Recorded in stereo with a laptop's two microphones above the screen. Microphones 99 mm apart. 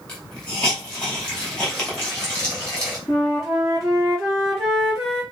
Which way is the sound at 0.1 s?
10° left (ahead or behind).